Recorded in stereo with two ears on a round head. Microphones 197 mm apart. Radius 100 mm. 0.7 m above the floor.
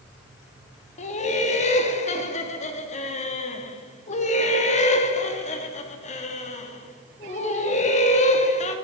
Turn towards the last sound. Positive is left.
turn(degrees=30)  # may be behind; listen again after turning